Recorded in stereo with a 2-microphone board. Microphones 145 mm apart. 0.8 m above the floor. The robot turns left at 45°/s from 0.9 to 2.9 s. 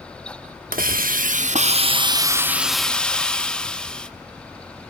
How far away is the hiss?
About 0.8 m.